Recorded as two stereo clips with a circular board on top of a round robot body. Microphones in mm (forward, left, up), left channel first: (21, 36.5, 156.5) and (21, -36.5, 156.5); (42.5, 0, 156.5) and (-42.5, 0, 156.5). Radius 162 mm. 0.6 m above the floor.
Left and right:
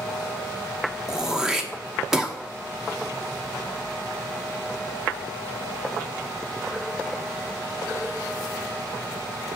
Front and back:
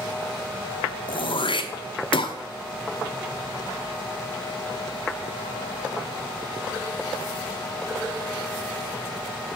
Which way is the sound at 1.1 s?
10° right.